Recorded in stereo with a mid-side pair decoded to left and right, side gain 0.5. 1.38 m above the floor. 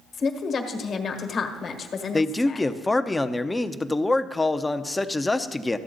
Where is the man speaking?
15° left, 0.7 m.